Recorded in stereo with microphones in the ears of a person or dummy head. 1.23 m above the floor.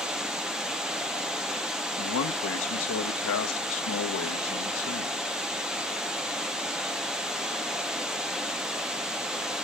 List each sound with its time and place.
0.0 s running water: 5° right (ahead or behind), 0.7 m
2.0 s a man speaking: 85° left, 1.0 m